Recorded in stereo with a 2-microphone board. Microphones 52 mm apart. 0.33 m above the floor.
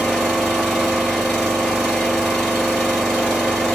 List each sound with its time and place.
0.0 s an engine running: 10° left (ahead or behind), 2.5 m